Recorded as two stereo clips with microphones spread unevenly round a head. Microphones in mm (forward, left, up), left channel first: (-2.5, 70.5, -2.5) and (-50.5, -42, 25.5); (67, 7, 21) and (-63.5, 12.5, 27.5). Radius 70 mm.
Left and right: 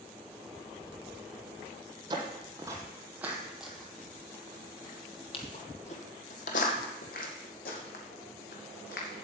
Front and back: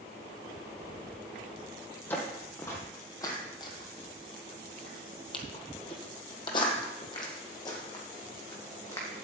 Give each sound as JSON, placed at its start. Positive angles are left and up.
{"t": 2.1, "sound": "footsteps", "azimuth_deg": -80, "distance_m": 1.9}